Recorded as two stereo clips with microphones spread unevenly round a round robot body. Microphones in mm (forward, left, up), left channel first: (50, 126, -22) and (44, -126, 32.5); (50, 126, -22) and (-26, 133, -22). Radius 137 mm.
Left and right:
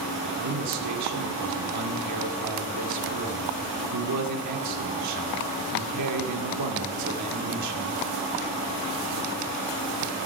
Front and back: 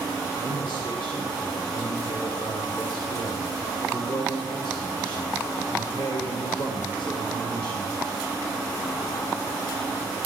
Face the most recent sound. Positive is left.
turn(degrees=-80)